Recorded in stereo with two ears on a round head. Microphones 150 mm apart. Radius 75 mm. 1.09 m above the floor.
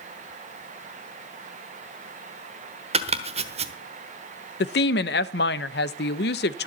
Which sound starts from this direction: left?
A woman speaking, at 4.6 s.